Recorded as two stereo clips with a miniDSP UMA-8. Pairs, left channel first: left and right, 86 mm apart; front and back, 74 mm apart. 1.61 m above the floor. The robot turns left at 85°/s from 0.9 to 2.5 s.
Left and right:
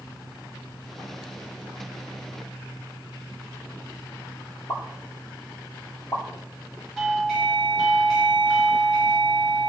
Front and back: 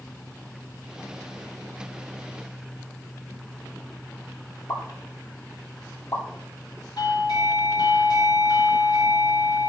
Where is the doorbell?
Straight ahead, 2 m.